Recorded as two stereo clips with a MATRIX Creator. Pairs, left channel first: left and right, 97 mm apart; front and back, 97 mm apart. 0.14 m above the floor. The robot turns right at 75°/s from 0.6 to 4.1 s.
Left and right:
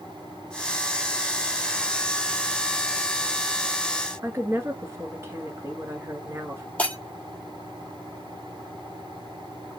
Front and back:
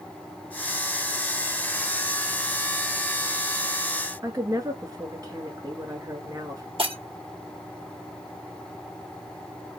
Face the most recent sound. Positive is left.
turn(degrees=165)